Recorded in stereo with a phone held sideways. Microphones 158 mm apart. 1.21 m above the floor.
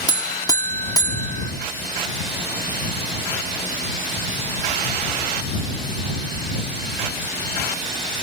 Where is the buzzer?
25° left (ahead or behind).